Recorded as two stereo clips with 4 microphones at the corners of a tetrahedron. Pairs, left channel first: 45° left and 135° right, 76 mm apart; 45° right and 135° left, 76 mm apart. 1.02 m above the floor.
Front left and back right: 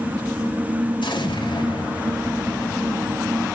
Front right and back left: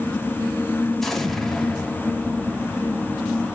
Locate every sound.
1.0 s an explosion: 40° left, 1.5 m